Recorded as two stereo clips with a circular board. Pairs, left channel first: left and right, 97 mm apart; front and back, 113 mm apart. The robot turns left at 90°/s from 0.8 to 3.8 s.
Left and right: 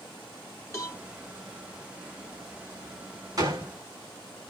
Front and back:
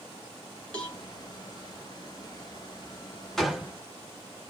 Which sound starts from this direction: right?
A gunshot, at 3.4 s.